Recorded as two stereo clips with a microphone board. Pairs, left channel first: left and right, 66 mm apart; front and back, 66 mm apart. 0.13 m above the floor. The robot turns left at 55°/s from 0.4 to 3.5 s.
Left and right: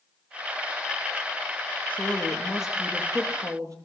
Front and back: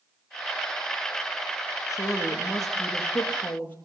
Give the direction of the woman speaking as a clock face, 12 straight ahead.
11 o'clock.